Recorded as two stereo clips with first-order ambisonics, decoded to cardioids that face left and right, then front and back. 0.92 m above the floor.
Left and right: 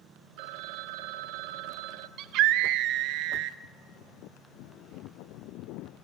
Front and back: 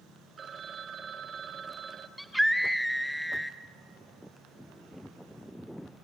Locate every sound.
0.4 s a phone ringing: 110° right, 0.7 m
2.2 s a scream: 90° right, 0.6 m